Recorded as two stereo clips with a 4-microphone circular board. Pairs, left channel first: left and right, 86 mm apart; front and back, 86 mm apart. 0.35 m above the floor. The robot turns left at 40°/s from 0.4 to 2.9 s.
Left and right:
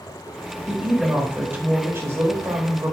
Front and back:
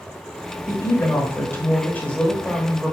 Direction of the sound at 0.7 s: 5° right.